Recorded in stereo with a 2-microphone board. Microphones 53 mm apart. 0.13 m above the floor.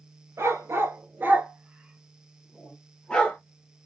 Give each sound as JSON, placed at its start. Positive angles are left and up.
{"t": 0.4, "sound": "a dog barking", "side_deg": -60, "distance_m": 1.2}